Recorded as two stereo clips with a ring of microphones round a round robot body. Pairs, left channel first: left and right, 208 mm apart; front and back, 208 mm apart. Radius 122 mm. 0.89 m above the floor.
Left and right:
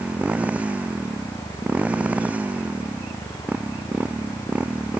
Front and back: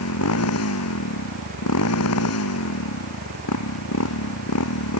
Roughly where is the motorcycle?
Ahead.